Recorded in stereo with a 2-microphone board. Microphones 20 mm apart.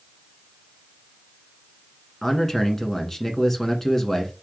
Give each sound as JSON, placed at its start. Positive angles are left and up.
{"t": 2.2, "sound": "a man speaking", "side_deg": 15, "distance_m": 1.1}